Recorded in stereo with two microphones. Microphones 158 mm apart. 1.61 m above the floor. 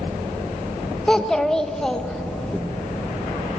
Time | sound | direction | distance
1.1 | a child speaking | 5° left (ahead or behind) | 1.0 m